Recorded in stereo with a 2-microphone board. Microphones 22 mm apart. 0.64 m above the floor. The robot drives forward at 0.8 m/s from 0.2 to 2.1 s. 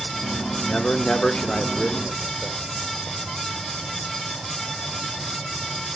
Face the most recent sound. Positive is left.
turn(degrees=35)  # may be behind; listen again after turning